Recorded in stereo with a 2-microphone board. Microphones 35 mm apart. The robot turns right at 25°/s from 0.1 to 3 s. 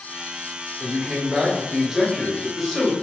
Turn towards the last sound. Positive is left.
turn(degrees=10)